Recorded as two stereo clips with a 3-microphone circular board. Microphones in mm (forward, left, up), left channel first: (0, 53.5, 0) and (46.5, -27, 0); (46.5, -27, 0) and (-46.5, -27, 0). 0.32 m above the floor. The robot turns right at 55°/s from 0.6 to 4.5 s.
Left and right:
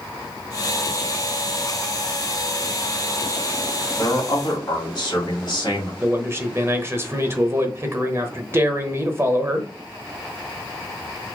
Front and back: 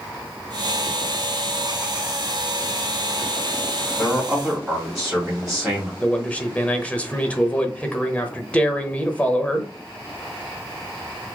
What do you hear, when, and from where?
4.0 s a man speaking: 75° left, 1.9 m; by 5.9 s 100° left, 1.9 m
6.0 s a man speaking: 60° right, 0.9 m